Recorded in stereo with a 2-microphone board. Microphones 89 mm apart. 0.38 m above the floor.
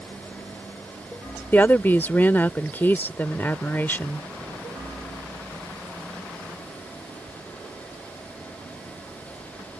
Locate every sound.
1.5 s a woman speaking: 20° left (ahead or behind)